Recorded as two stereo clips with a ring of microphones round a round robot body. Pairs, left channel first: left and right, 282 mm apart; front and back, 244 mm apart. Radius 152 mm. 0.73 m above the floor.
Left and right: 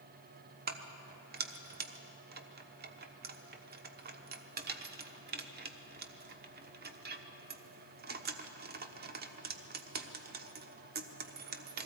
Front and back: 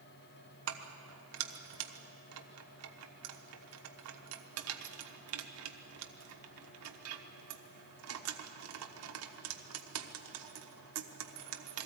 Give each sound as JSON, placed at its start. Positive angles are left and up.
{"t": 0.7, "sound": "keys jangling", "azimuth_deg": -150, "distance_m": 1.0}